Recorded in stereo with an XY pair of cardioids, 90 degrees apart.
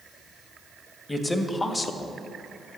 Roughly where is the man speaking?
Ahead left.